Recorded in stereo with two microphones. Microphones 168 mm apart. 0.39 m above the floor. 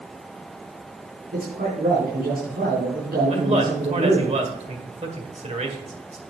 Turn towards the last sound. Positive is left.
turn(degrees=-40)  # may be behind; listen again after turning